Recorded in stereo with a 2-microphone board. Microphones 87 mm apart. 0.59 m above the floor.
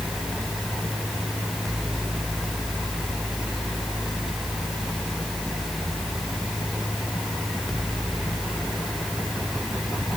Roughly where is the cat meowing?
No cat meowing in this recording.